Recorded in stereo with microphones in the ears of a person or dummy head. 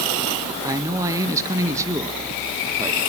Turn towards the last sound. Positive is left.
turn(degrees=-15)  # may be behind; listen again after turning